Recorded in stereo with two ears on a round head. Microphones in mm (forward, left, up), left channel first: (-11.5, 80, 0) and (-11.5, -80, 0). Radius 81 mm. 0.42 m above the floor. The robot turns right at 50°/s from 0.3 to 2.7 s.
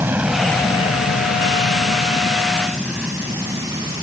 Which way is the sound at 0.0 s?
10° right (ahead or behind).